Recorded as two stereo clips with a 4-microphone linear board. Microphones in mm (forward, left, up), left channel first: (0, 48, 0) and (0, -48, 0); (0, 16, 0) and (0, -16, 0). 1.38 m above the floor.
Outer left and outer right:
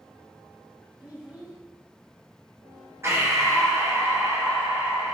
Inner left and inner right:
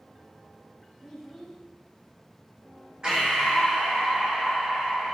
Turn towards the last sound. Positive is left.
turn(degrees=-25)  # may be behind; listen again after turning